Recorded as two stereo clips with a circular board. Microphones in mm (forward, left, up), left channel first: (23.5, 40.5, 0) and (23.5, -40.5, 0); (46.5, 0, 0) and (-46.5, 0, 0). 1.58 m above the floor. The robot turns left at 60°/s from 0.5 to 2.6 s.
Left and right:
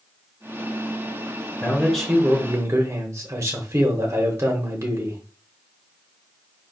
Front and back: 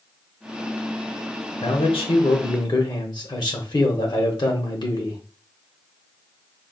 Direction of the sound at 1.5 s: 30° left.